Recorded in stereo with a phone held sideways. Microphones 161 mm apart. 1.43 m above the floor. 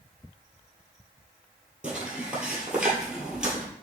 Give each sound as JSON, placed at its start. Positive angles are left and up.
{"t": 1.8, "sound": "footsteps", "side_deg": -5, "distance_m": 1.5}